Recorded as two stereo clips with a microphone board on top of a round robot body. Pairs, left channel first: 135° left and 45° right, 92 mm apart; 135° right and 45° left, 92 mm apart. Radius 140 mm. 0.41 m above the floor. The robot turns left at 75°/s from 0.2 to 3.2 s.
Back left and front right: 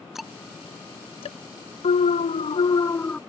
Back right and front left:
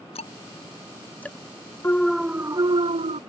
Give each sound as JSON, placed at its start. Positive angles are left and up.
{"t": 0.1, "sound": "ticking", "azimuth_deg": -130}
{"t": 1.8, "sound": "an alarm", "azimuth_deg": 155}